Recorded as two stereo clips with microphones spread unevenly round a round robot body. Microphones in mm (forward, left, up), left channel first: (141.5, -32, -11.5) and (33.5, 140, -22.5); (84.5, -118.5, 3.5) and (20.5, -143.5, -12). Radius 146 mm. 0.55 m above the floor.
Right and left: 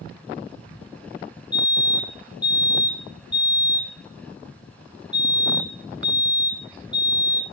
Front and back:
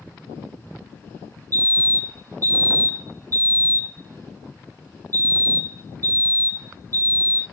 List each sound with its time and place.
1.5 s a fire alarm: 155° right, 4.5 m